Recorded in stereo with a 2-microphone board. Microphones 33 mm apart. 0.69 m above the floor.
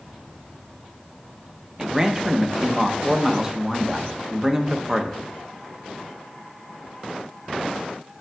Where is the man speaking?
20° right (ahead or behind), 0.8 m.